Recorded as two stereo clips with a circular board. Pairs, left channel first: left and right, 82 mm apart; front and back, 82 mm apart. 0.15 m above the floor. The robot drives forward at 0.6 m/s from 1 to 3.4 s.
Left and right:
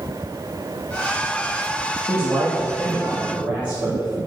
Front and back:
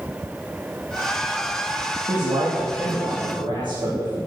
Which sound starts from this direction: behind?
A man speaking, at 2.1 s.